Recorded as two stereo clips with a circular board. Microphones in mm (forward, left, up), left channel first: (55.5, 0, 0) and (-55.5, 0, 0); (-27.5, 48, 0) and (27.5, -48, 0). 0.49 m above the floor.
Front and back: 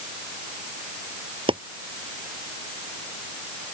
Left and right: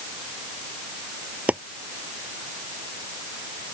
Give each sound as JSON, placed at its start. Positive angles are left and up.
{"t": 1.5, "sound": "chopping", "azimuth_deg": -140}